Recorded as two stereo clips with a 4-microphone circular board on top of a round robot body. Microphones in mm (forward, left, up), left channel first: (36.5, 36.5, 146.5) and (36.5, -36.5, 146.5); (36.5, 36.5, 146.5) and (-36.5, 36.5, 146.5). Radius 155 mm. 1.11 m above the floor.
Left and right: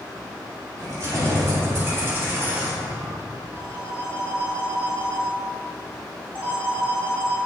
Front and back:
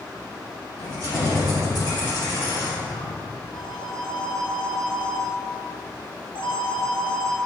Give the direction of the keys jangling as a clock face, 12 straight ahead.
2 o'clock.